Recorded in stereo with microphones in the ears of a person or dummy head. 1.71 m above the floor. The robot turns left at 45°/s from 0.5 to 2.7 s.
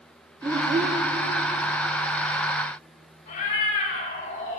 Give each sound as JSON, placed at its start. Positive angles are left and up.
{"t": 0.4, "sound": "a child speaking", "side_deg": -20, "distance_m": 1.3}
{"t": 3.3, "sound": "a cat meowing", "side_deg": 45, "distance_m": 4.0}